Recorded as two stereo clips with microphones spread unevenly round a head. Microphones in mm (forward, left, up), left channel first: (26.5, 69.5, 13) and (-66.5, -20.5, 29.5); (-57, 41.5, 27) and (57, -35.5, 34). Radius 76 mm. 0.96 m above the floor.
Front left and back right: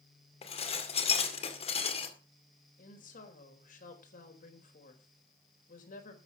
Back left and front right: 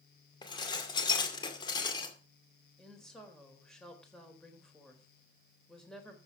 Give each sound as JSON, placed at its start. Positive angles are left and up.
{"t": 0.4, "sound": "dishes clattering", "azimuth_deg": 85, "distance_m": 2.0}
{"t": 2.8, "sound": "a woman speaking", "azimuth_deg": 60, "distance_m": 3.5}